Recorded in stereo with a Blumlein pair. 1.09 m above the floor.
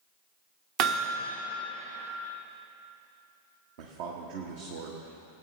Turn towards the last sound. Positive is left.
turn(degrees=-50)